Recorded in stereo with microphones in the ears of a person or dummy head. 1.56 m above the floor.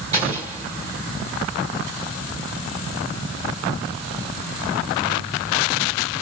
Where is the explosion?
20° right (ahead or behind), 1.4 m.